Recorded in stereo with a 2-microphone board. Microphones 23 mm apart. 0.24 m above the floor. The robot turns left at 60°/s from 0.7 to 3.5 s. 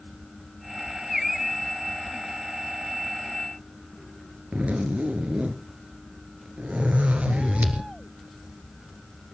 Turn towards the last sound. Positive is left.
turn(degrees=-75)  # may be behind; listen again after turning